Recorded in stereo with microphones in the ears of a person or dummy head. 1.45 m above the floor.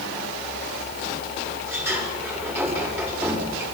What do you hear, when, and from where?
1.7 s a sliding door: 10° right (ahead or behind), 6.5 m